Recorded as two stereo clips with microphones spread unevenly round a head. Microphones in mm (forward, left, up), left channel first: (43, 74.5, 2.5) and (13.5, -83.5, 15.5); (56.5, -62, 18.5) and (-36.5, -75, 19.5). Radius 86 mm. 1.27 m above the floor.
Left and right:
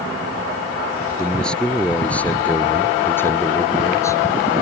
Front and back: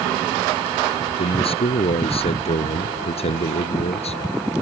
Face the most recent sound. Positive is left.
turn(degrees=10)